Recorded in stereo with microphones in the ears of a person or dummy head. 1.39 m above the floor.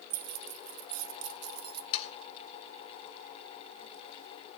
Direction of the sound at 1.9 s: 45° left (ahead or behind).